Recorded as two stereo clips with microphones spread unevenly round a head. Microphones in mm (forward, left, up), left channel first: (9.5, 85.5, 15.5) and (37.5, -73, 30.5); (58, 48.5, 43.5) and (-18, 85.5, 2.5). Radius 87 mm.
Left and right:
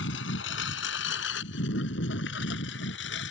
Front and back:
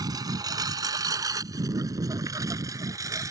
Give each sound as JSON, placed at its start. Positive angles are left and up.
{"t": 0.0, "sound": "a lawn mower", "azimuth_deg": 105}